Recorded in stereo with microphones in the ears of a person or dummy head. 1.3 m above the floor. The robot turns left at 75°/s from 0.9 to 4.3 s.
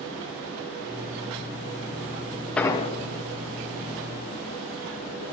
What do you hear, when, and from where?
2.6 s an explosion: 10° left (ahead or behind), 0.6 m; by 2.9 s 35° left (ahead or behind), 0.6 m